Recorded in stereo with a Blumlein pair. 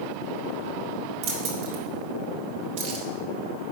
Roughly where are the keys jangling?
Ahead right.